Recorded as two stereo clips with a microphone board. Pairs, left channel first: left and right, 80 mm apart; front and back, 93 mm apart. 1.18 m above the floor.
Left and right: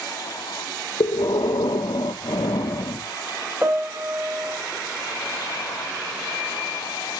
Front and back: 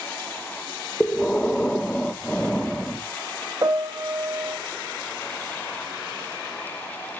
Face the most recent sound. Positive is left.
turn(degrees=-150)